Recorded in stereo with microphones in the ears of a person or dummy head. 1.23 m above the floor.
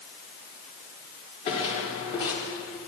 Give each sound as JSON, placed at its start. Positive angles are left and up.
{"t": 1.5, "sound": "footsteps", "side_deg": 35, "distance_m": 6.5}